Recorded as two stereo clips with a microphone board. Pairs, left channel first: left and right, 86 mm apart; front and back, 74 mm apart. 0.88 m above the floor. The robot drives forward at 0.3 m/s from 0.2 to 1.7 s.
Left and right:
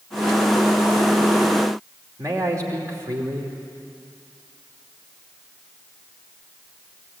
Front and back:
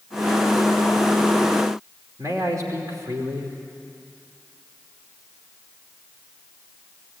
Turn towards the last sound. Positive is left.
turn(degrees=-140)